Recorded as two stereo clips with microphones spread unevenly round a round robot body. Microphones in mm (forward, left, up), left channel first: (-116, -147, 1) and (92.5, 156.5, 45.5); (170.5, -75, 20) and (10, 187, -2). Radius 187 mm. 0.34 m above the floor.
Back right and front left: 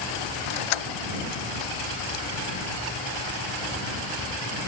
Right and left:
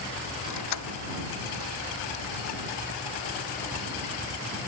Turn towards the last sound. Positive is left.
turn(degrees=-110)